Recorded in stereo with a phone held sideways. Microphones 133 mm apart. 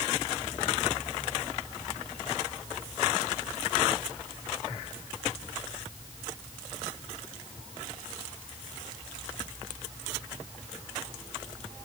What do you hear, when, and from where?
Only background noise.